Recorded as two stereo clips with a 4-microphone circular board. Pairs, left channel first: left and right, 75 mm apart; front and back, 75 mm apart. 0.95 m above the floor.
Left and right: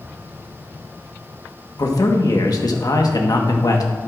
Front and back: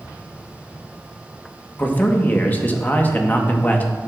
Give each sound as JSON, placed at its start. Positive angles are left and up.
{"t": 1.8, "sound": "a man speaking", "azimuth_deg": 65, "distance_m": 1.2}